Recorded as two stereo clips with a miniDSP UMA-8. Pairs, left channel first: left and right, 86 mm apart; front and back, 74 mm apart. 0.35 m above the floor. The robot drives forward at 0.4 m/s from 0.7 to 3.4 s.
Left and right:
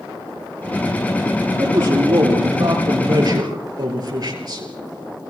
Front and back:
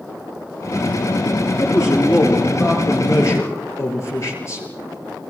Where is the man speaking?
45° right, 8 m; by 4.7 s 50° right, 7.5 m.